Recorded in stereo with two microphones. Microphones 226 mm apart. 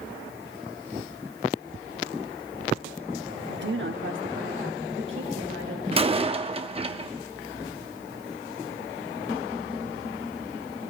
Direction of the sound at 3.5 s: 50° right (ahead or behind).